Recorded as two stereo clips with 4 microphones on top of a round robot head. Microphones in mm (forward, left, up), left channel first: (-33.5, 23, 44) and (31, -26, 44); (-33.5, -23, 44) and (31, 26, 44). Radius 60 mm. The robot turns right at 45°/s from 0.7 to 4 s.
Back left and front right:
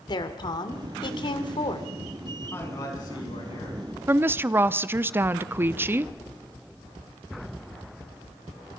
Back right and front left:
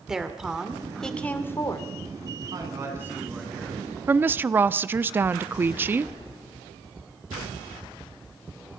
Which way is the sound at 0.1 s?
120° left.